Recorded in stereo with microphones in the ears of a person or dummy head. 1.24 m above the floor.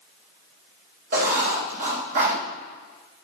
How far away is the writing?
About 3 m.